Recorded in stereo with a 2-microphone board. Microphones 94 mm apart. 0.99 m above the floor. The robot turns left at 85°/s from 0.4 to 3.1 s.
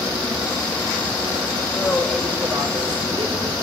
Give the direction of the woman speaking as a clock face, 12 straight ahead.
11 o'clock.